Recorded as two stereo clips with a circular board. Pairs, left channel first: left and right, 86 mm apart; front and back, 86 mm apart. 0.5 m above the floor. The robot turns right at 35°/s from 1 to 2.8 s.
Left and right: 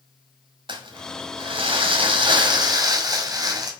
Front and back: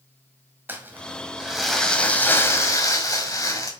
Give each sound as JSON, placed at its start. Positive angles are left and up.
{"t": 0.7, "sound": "crumpling", "azimuth_deg": -110, "distance_m": 1.6}